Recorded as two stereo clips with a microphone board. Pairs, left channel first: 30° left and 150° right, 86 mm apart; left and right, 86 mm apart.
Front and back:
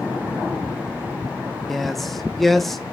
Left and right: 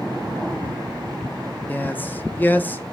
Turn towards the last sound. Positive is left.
turn(degrees=115)